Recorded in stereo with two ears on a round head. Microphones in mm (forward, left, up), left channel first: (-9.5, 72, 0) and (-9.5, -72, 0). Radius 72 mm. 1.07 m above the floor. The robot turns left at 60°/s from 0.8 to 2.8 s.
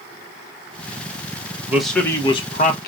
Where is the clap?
I don't hear a clap.